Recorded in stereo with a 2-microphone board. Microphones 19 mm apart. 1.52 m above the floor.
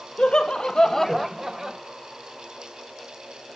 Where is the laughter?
75° left (ahead or behind), 1.6 m; by 1.8 s 45° right (ahead or behind), 1.3 m.